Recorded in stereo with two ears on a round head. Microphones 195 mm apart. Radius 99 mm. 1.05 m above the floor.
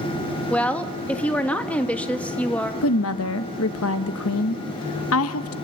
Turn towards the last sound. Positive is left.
turn(degrees=70)  # may be behind; listen again after turning